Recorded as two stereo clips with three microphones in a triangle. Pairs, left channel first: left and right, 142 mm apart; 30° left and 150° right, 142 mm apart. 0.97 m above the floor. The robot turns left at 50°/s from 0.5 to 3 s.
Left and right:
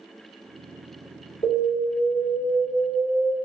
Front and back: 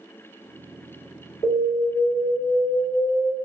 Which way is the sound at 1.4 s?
45° left.